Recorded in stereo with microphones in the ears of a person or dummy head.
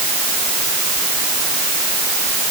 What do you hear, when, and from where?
Only background noise.